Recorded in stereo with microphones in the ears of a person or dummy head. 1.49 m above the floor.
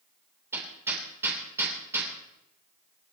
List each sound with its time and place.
0.5 s hammering: 15° right (ahead or behind), 3.5 m